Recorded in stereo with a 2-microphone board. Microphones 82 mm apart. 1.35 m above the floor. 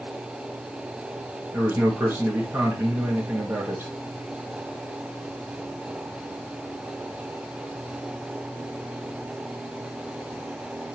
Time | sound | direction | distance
1.5 | a man speaking | 25° right (ahead or behind) | 1.8 m